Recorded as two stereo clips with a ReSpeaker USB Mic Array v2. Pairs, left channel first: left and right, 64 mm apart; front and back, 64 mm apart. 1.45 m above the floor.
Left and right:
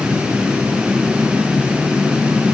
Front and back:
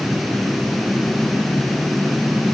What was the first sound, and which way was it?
Only background noise.